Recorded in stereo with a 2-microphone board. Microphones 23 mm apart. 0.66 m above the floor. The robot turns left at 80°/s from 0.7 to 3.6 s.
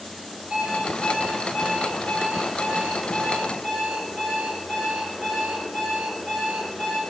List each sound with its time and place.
0.5 s an alarm clock: 125° right, 8 m; by 7.0 s 5° left, 8 m